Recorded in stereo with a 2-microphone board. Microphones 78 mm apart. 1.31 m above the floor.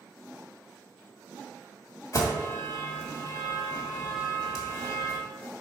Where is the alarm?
50° left (ahead or behind), 1.8 m.